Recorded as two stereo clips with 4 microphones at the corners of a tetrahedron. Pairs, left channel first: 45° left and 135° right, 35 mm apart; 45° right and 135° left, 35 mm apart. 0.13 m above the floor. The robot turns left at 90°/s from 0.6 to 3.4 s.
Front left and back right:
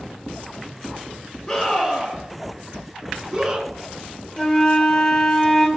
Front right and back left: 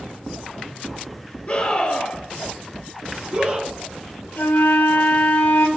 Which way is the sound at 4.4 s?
25° right.